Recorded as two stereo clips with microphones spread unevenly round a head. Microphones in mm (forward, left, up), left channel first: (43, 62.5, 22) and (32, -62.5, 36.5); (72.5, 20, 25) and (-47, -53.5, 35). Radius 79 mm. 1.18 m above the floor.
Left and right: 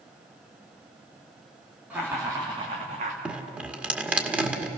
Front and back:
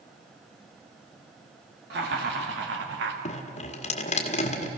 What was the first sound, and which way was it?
Laughter, 175° right.